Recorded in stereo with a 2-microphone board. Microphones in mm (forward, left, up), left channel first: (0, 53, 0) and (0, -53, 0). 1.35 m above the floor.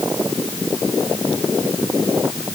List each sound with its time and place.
Only background noise.